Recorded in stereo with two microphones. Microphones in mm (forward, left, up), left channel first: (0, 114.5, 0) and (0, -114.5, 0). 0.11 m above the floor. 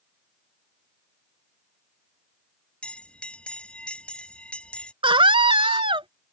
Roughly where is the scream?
Right.